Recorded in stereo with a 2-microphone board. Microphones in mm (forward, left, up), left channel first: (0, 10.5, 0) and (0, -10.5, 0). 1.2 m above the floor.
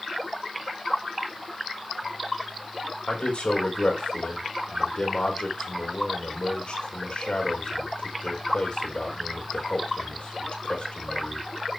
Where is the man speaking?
80° left, 4.5 m.